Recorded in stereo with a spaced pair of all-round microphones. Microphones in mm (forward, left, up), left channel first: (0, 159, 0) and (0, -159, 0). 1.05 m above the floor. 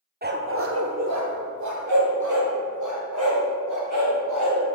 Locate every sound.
0.2 s a dog barking: 30° right (ahead or behind), 0.6 m; by 4.6 s 75° right (ahead or behind), 2.5 m